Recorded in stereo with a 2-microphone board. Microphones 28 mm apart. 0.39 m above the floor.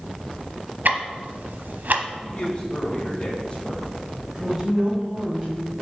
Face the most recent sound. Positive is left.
turn(degrees=-15)  # may be behind; listen again after turning